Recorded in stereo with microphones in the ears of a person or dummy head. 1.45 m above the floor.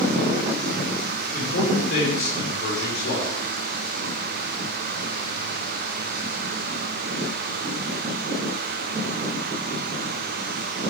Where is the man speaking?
55° left (ahead or behind), 5 m.